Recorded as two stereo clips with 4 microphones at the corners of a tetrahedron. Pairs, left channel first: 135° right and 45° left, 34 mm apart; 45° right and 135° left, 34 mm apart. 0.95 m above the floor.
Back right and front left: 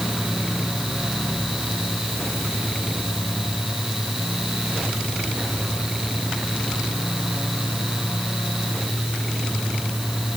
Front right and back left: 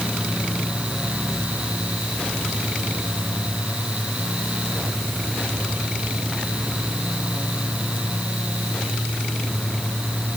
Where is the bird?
I don't hear a bird.